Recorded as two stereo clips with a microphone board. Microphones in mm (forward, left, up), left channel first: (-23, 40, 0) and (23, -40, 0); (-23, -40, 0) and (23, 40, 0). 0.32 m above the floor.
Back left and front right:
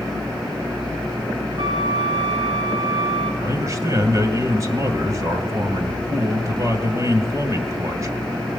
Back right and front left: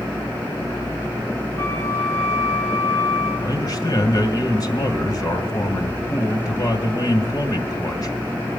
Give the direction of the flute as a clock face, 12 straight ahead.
2 o'clock.